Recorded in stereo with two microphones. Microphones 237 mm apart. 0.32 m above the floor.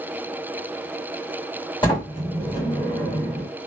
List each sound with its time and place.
1.8 s a sliding door: 20° left (ahead or behind), 1.6 m